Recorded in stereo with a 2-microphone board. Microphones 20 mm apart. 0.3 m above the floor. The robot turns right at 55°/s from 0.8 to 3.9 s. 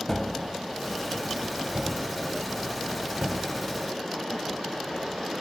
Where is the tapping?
10° left (ahead or behind); by 3.5 s 35° right (ahead or behind).